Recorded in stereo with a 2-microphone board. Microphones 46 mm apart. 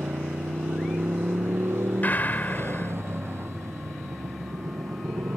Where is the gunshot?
45° left (ahead or behind).